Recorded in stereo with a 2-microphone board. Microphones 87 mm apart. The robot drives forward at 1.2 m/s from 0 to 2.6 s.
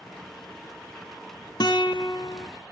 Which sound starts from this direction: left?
A guitar, at 1.6 s.